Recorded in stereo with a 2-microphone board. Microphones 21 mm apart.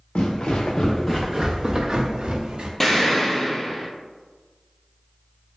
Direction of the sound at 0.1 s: 70° left (ahead or behind).